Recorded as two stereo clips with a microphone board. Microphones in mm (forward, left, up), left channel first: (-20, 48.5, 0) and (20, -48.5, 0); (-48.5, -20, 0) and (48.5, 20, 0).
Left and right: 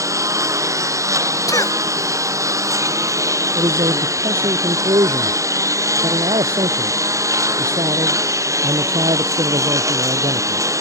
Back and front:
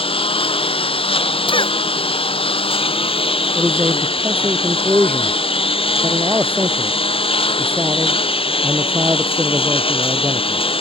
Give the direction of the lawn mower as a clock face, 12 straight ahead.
4 o'clock.